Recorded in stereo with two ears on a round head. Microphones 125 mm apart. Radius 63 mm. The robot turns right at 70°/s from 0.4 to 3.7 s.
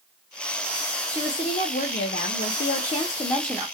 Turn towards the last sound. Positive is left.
turn(degrees=-165)